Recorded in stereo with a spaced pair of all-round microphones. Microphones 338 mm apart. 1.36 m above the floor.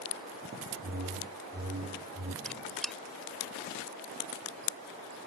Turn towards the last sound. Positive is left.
turn(degrees=0)  # may be behind; listen again after turning